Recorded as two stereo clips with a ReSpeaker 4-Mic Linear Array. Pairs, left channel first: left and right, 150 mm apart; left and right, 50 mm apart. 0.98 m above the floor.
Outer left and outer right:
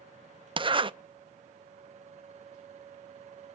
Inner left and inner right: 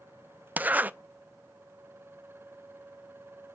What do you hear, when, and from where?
0.6 s a zipper: 35° right (ahead or behind), 0.5 m